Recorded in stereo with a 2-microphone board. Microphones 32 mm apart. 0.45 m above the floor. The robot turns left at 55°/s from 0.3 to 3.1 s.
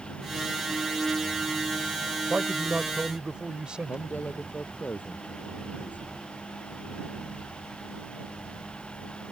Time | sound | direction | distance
2.3 | a man speaking | 100° right | ?
3.9 | a man speaking | 65° left (ahead or behind) | ?